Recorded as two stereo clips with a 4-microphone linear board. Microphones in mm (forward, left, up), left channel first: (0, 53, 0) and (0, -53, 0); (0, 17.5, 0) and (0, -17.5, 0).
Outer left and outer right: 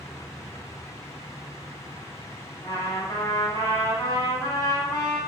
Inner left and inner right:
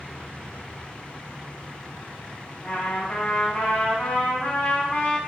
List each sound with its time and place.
2.6 s a trumpet: 30° left (ahead or behind), 1.3 m